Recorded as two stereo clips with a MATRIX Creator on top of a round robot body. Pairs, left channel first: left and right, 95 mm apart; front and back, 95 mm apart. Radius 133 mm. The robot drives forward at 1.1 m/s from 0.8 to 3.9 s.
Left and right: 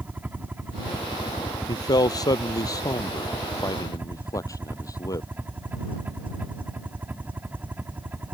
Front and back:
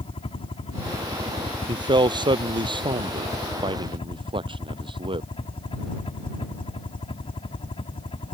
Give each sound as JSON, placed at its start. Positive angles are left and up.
{"t": 0.0, "sound": "a helicopter", "azimuth_deg": -15}
{"t": 1.7, "sound": "a man speaking", "azimuth_deg": 140}